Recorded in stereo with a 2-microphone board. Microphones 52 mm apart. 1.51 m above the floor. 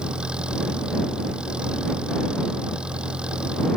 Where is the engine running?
20° right (ahead or behind).